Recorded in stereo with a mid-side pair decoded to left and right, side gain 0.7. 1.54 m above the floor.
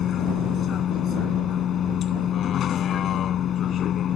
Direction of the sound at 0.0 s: 40° left.